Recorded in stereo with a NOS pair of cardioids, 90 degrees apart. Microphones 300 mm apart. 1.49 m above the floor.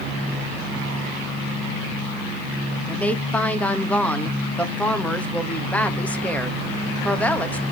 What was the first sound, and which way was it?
A woman speaking, 5° left.